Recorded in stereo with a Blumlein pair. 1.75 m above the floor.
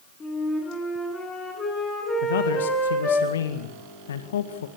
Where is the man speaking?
65° left, 1.9 m.